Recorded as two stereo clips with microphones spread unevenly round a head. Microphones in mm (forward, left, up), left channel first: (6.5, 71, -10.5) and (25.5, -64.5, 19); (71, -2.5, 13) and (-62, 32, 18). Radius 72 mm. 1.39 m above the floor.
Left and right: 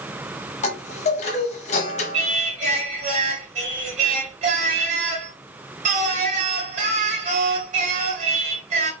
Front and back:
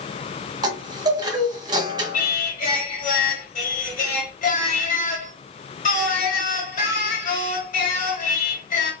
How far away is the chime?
About 0.9 m.